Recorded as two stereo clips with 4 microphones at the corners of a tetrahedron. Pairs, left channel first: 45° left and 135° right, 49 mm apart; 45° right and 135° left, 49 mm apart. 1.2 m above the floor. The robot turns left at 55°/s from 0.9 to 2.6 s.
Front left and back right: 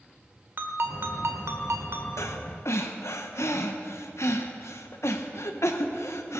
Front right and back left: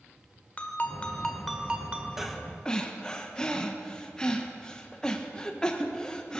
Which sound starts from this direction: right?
A ringtone, at 0.6 s.